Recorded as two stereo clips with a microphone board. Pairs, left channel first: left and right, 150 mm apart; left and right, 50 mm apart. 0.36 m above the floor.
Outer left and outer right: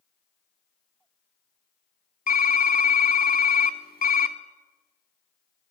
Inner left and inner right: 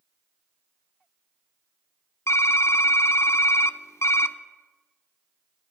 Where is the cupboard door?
No cupboard door in this recording.